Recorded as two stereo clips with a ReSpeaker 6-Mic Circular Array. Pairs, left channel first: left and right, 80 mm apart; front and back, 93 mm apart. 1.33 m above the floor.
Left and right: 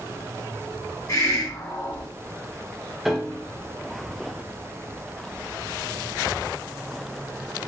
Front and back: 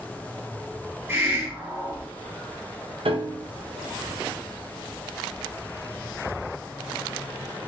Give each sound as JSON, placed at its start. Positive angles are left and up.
{"t": 1.1, "sound": "a hiss", "azimuth_deg": 120, "distance_m": 1.7}
{"t": 3.0, "sound": "a piano", "azimuth_deg": 180, "distance_m": 0.6}